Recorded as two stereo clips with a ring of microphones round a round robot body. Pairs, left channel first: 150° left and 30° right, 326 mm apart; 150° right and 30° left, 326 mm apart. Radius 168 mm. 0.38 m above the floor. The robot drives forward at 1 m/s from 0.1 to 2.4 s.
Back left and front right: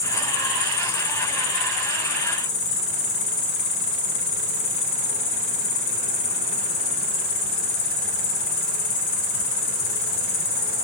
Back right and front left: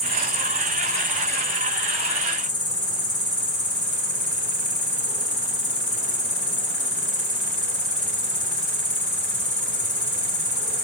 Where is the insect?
95° left, 2.5 m; by 10.8 s 135° left, 3.5 m.